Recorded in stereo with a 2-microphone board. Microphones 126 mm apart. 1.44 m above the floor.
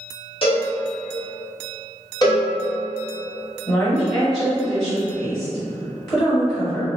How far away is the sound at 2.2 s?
About 1.1 m.